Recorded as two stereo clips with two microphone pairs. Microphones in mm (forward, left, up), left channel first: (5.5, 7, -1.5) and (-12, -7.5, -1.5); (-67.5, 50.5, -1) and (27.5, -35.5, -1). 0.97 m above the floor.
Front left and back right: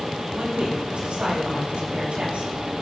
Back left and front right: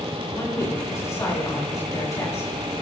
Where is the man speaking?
155° right, 7 m.